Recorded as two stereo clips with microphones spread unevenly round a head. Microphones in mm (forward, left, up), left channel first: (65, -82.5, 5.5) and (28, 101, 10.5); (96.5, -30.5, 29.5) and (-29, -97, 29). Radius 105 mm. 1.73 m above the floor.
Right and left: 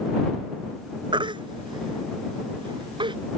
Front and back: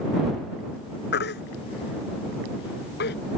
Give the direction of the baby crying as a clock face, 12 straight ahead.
11 o'clock.